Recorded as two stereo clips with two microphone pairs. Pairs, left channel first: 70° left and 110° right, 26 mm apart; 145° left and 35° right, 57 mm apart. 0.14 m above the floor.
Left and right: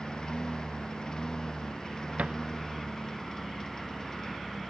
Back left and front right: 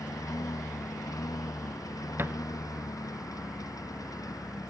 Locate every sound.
0.0 s a lawn mower: 130° left; by 4.7 s 140° left
2.2 s a thud: 85° right